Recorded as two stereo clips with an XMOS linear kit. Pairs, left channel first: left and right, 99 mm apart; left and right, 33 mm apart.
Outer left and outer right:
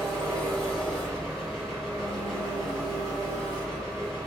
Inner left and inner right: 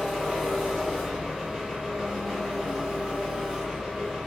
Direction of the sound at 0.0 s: Centre (ahead or behind).